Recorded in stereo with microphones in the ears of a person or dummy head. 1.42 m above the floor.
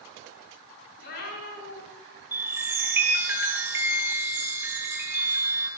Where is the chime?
15° right (ahead or behind), 4.5 m.